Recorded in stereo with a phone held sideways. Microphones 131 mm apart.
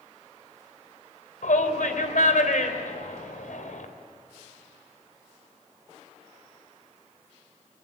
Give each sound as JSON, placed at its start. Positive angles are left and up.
{"t": 1.4, "sound": "a shout", "side_deg": 80, "distance_m": 3.0}